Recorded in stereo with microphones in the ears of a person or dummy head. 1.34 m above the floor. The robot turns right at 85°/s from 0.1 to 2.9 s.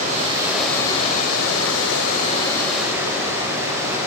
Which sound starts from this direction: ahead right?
Running water, at 0.0 s.